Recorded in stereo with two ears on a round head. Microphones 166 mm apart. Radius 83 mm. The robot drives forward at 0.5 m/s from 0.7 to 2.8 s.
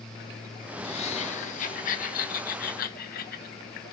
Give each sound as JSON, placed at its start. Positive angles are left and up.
{"t": 0.8, "sound": "laughter", "side_deg": 35, "distance_m": 1.6}